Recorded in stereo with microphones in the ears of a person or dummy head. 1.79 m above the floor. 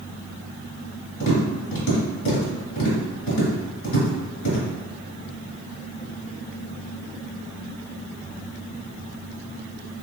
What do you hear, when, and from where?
1.2 s tapping: 50° left (ahead or behind), 1.7 m